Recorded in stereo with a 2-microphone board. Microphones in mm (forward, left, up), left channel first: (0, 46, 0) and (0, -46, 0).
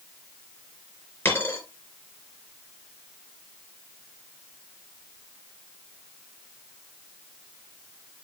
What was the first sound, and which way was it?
A dropped coin, 20° left (ahead or behind).